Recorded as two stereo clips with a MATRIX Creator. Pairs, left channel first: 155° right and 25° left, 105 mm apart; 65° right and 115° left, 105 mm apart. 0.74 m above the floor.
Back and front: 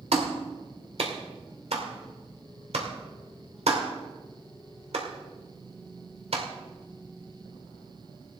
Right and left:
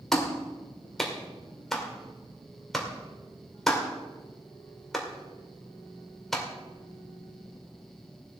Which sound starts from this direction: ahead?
A clap, at 0.1 s.